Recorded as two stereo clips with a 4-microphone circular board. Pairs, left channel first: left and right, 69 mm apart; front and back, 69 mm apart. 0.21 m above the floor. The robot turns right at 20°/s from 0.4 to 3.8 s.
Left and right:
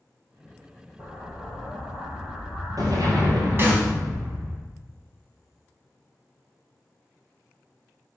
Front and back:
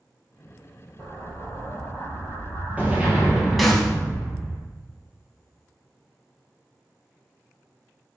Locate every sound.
1.0 s an explosion: 150° right, 3.5 m; by 4.6 s 90° right, 3.5 m
3.6 s a snare drum: 90° right, 1.8 m; by 3.9 s 85° right, 1.8 m